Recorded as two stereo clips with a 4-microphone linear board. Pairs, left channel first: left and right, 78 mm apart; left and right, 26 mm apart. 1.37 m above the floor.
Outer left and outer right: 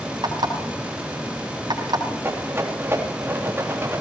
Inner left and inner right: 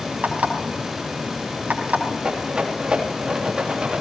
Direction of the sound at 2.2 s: 30° right (ahead or behind).